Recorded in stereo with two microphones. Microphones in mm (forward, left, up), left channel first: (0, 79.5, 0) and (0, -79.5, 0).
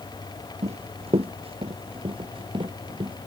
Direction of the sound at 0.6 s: 40° right (ahead or behind).